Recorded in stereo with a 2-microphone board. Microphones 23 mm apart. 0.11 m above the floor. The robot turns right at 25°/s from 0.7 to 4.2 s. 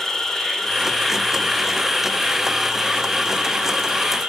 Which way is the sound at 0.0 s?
160° left.